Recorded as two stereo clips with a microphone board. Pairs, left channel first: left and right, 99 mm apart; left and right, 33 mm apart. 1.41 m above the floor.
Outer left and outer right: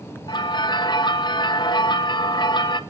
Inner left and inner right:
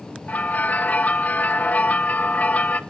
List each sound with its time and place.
0.3 s a bell: 50° left (ahead or behind), 0.8 m